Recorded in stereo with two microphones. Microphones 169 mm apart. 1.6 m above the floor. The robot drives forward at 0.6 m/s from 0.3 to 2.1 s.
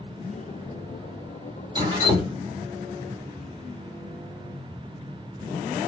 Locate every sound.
1.8 s dripping: 25° right (ahead or behind), 1.3 m